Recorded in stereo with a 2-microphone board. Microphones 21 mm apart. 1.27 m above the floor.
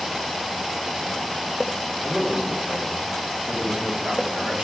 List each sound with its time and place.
2.0 s a man speaking: 60° right (ahead or behind), 3 m